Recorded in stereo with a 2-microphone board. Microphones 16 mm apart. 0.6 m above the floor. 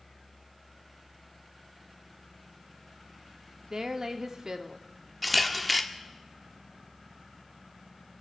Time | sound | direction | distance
3.6 | a woman speaking | 40° right (ahead or behind) | 0.9 m
5.2 | a camera shutter | centre (ahead or behind) | 0.9 m